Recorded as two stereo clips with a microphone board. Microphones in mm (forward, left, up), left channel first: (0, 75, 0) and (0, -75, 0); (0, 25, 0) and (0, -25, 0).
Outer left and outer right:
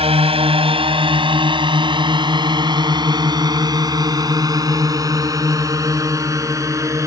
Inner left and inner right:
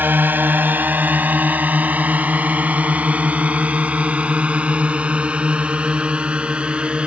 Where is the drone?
40° right (ahead or behind); by 7.1 s 20° right (ahead or behind).